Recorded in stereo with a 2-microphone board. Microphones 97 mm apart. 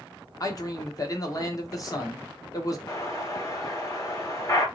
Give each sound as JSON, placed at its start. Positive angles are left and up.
{"t": 0.4, "sound": "a man speaking", "side_deg": 35, "distance_m": 0.9}
{"t": 2.9, "sound": "an explosion", "side_deg": 30, "distance_m": 1.0}